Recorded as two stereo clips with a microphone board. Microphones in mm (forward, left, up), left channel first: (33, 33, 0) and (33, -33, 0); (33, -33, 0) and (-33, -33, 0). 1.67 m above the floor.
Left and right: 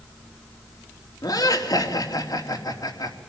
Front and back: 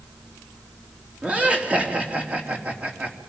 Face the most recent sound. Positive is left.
turn(degrees=110)